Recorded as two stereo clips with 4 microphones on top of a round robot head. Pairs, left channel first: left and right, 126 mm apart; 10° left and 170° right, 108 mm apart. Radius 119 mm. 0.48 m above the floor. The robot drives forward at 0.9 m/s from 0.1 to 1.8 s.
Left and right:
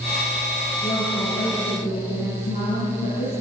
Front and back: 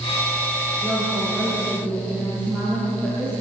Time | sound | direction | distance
0.8 | a woman speaking | 100° left | 8 m